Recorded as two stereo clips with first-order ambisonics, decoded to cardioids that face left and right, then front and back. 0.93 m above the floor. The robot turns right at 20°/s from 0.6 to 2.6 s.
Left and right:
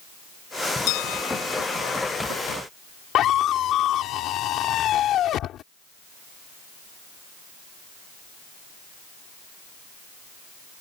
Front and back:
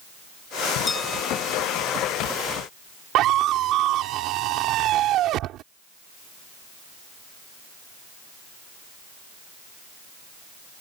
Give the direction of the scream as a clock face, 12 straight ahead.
7 o'clock.